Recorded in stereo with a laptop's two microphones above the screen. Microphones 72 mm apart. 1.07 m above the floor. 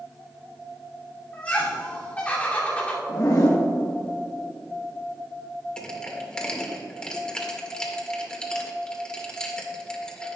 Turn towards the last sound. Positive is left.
turn(degrees=10)  # may be behind; listen again after turning